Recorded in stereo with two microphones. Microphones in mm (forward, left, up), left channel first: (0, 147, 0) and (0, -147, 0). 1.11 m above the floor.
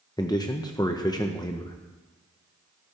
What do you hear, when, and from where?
0.2 s a man speaking: 15° left (ahead or behind), 0.7 m